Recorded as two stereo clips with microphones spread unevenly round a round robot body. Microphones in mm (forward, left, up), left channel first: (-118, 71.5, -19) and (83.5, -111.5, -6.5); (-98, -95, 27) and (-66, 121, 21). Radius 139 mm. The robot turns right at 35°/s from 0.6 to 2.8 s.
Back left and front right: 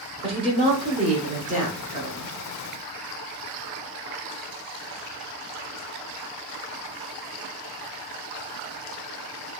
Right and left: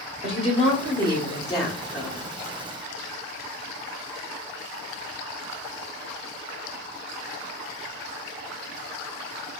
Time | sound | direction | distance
0.2 | a woman speaking | 80° right | 0.9 m